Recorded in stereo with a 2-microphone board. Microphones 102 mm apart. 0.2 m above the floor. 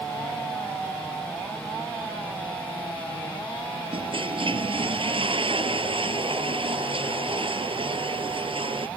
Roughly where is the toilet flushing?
Right.